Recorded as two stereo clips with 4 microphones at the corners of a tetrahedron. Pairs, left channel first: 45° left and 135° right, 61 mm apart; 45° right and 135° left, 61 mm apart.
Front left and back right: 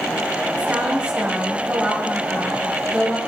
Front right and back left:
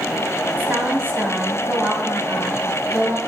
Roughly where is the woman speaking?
Behind.